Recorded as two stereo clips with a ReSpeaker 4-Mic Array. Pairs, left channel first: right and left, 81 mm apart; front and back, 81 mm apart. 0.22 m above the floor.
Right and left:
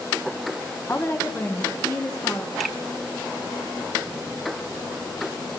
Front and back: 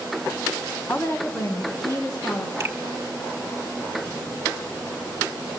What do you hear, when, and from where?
0.9 s a woman speaking: 50° right, 1.3 m; by 2.5 s 35° right, 2.5 m
2.6 s a finger snap: 170° right, 1.5 m